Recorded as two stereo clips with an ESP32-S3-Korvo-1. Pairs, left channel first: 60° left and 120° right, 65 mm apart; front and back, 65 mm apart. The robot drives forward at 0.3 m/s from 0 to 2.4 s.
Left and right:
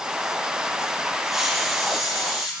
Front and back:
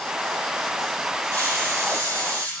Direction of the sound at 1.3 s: 155° left.